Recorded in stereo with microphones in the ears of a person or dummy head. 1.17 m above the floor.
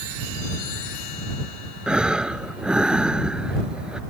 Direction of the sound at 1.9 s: 5° right (ahead or behind).